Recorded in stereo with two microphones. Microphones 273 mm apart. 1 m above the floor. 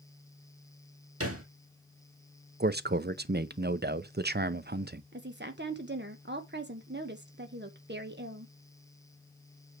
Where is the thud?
55° right (ahead or behind), 1.9 m.